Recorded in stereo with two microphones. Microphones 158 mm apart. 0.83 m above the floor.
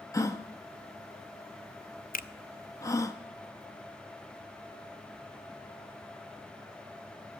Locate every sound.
0.1 s a gasp: 20° left (ahead or behind), 0.8 m
2.1 s a finger snap: 60° left (ahead or behind), 0.5 m